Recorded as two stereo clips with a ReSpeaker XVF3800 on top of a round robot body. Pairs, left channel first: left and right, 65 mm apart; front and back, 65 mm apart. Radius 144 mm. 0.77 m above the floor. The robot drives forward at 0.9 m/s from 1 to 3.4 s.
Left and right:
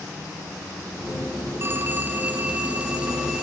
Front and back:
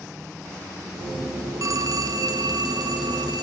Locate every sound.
1.6 s a phone ringing: 145° right, 1.1 m; by 3.4 s 165° right, 2.5 m